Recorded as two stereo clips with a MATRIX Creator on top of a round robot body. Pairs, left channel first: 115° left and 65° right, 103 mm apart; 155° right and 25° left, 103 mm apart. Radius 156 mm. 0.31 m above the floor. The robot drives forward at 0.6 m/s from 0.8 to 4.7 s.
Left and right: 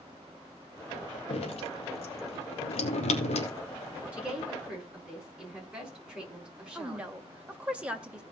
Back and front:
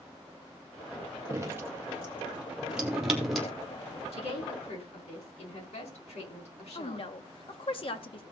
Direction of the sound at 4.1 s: 145° right.